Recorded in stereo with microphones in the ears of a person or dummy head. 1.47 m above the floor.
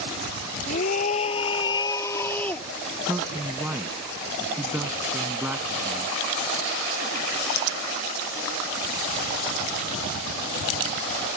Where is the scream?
45° left (ahead or behind); by 2.7 s 10° left (ahead or behind).